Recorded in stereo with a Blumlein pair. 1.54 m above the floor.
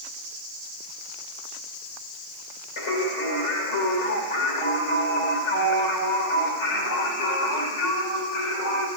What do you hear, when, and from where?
2.8 s singing: 55° left, 1.8 m